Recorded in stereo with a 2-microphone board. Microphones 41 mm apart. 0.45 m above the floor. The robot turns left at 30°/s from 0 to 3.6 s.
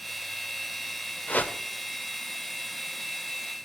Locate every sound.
1.3 s a whoosh: 40° left (ahead or behind), 0.9 m; by 1.6 s 45° left (ahead or behind), 0.9 m